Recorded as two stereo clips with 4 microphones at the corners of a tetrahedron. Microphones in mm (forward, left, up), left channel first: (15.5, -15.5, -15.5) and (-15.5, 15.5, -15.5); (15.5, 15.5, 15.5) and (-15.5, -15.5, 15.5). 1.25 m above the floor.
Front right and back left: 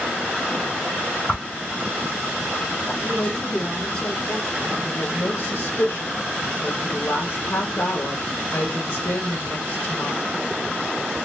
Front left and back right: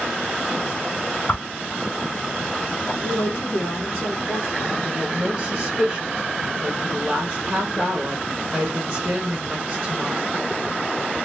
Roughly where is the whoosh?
Ahead.